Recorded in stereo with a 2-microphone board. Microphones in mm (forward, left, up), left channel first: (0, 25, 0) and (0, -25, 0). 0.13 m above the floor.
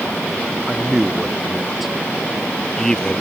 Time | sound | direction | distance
0.7 | a man speaking | 10° right (ahead or behind) | ?